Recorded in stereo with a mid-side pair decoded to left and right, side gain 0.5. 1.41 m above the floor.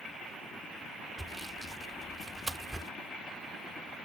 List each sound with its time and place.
1.2 s sawing: 15° right